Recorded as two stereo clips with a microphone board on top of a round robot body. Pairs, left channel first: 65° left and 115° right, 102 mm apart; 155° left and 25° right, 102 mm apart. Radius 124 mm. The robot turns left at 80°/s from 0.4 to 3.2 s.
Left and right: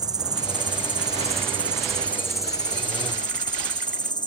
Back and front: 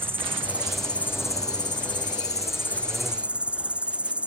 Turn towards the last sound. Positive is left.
turn(degrees=50)